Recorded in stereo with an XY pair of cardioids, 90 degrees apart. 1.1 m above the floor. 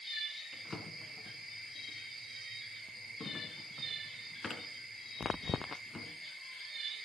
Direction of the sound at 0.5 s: 35° left.